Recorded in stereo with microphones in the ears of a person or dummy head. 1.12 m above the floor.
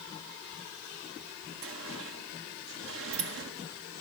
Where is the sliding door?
70° right (ahead or behind), 1.6 m.